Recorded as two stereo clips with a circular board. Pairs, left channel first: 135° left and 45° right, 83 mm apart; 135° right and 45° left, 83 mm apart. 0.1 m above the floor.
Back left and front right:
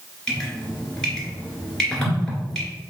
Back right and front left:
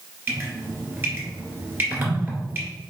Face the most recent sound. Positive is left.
turn(degrees=60)